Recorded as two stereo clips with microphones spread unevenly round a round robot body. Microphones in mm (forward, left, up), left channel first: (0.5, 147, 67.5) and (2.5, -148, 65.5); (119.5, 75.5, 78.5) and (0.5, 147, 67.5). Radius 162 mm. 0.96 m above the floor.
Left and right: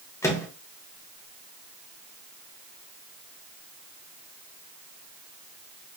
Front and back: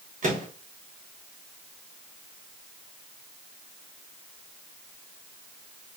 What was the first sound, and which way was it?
A microwave, 170° left.